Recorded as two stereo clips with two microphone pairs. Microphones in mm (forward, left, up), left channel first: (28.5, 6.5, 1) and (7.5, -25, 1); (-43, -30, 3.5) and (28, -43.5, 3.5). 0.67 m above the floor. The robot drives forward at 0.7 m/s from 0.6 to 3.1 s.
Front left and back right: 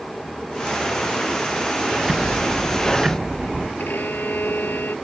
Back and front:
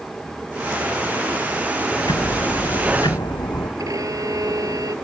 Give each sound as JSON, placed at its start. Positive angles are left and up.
{"t": 2.0, "sound": "ticking", "azimuth_deg": 155}
{"t": 3.8, "sound": "a violin", "azimuth_deg": 25}